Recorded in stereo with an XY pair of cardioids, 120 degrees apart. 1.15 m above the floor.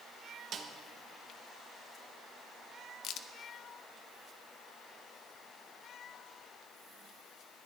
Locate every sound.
0.5 s a snare drum: 55° right, 1.1 m
3.0 s a crack: 70° left, 0.6 m